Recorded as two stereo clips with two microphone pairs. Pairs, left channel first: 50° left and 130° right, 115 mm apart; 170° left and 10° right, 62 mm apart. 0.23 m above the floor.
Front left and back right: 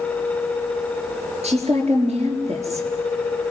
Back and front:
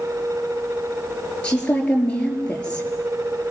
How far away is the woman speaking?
About 4.5 m.